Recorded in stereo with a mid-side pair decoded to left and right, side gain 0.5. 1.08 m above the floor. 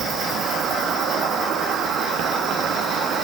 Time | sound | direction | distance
0.0 | an insect | 65° right | 0.9 m